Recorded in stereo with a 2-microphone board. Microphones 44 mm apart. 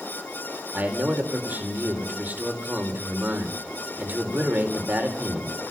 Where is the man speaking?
40° right (ahead or behind), 5 m.